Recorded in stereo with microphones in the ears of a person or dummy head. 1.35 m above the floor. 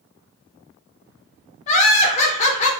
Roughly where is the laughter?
Left.